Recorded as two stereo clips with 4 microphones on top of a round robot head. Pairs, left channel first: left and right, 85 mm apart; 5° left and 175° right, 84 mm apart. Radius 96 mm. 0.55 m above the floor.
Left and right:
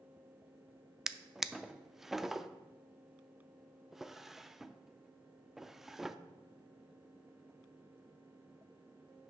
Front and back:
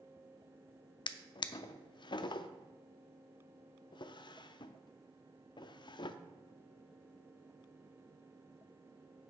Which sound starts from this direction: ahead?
A drawer, at 1.1 s.